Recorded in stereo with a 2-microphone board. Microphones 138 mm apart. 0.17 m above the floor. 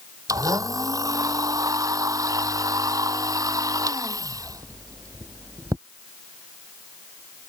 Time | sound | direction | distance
0.3 | a blender | 25° right (ahead or behind) | ?